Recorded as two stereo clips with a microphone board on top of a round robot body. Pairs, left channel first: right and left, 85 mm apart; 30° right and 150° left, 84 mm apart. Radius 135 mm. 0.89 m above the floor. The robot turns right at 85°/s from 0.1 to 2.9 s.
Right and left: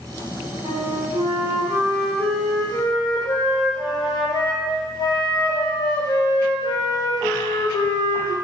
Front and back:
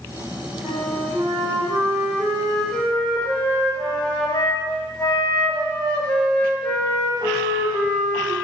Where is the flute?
60° left, 0.7 m; by 8.3 s 105° right, 0.7 m.